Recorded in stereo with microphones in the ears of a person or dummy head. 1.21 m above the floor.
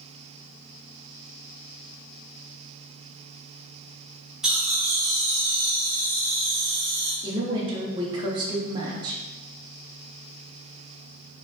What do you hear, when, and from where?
4.4 s laughter: centre (ahead or behind), 0.7 m; by 7.1 s 25° right (ahead or behind), 2 m
7.2 s a woman speaking: 15° right (ahead or behind), 0.6 m